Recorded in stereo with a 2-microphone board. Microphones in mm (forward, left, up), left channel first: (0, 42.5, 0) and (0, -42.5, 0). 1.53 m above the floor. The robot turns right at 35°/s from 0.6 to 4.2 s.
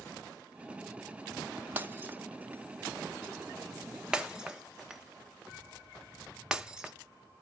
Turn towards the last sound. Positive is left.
turn(degrees=-5)  # may be behind; listen again after turning